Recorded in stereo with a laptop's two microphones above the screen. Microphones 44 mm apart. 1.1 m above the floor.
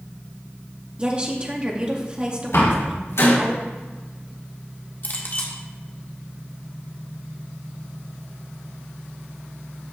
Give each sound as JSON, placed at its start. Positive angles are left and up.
{"t": 1.0, "sound": "a woman speaking", "side_deg": -25, "distance_m": 2.5}
{"t": 2.5, "sound": "a door slam", "side_deg": 80, "distance_m": 4.0}
{"t": 5.0, "sound": "a clink", "side_deg": 50, "distance_m": 1.5}